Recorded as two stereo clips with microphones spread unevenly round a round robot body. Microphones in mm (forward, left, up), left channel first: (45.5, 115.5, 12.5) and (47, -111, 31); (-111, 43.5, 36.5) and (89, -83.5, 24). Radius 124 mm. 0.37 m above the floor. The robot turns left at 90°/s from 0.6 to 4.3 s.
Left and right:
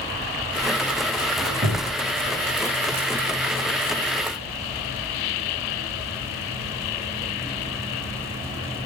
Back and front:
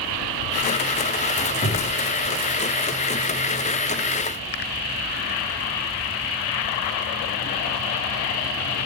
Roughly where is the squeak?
Behind right.